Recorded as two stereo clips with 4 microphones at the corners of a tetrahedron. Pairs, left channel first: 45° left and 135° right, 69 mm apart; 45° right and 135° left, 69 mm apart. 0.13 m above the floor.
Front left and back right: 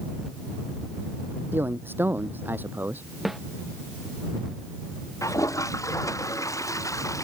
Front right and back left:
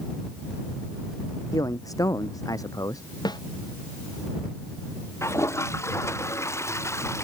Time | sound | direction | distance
1.5 | a man speaking | 80° right | ?
3.2 | a snare drum | 50° right | ?
5.2 | a toilet flushing | 5° left | ?